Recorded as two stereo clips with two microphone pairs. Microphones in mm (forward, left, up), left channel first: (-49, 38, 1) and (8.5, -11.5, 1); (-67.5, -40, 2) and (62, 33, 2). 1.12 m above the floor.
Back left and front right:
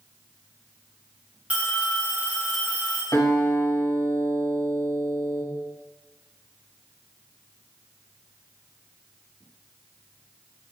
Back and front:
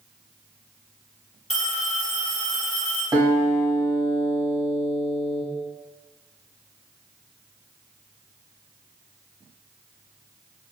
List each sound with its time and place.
1.5 s a phone ringing: 115° right, 0.5 m
3.1 s a guitar: 100° left, 1.1 m